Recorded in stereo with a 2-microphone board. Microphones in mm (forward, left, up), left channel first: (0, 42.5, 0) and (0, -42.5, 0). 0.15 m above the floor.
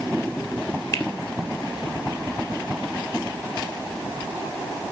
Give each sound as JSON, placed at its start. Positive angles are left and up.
{"t": 0.9, "sound": "a finger snap", "side_deg": 35, "distance_m": 2.5}